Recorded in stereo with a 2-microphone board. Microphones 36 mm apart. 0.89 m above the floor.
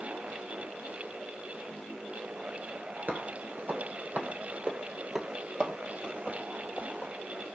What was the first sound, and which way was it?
Footsteps, 55° right (ahead or behind).